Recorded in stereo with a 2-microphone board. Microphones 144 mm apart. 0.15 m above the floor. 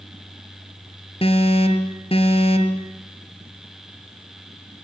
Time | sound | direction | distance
1.2 | an alarm | 40° left (ahead or behind) | 2 m